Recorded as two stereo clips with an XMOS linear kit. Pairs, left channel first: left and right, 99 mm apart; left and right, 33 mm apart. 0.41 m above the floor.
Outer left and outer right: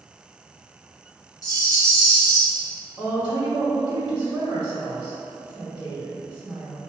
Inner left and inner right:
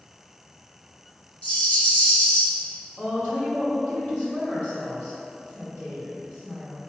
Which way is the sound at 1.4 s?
40° left (ahead or behind).